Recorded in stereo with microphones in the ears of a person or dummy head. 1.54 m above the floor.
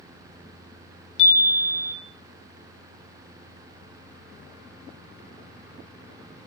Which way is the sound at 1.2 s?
65° left (ahead or behind).